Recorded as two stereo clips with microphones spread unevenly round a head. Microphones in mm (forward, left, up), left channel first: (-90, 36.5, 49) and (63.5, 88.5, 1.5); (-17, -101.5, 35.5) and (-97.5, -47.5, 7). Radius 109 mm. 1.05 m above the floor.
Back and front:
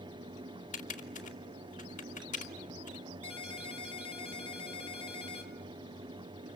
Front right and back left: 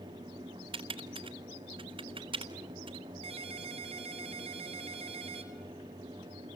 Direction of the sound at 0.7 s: 155° left.